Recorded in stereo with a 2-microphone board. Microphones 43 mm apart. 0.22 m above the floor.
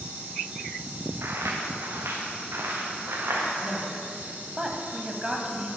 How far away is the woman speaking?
About 1.1 m.